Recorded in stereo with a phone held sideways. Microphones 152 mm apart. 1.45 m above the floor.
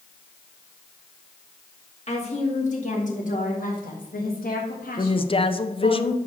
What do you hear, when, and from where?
2.1 s a woman speaking: 45° left (ahead or behind), 2 m; by 6.0 s 65° left (ahead or behind), 1.6 m
5.0 s a woman speaking: 35° left (ahead or behind), 0.6 m